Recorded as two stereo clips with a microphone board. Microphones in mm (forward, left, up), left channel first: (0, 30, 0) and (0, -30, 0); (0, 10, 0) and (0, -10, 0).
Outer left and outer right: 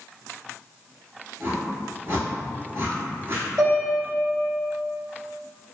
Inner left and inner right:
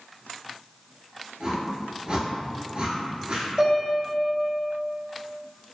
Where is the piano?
45° right (ahead or behind), 1.5 m.